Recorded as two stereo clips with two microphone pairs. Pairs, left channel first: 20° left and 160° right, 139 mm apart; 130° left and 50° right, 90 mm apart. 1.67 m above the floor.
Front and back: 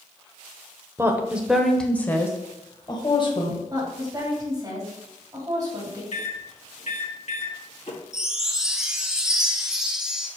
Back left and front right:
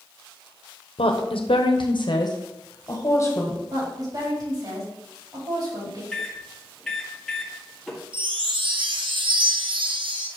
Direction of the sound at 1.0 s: 130° left.